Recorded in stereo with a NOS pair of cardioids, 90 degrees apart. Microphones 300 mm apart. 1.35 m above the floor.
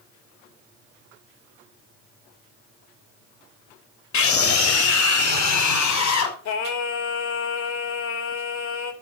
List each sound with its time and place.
4.1 s a scream: 65° left, 3 m; by 6.3 s 75° left, 5 m
6.5 s singing: 65° left, 3 m